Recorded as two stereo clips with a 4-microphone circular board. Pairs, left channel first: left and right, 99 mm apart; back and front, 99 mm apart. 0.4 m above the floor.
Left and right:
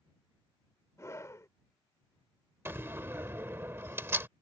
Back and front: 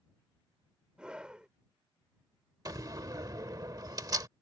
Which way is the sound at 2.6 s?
35° right.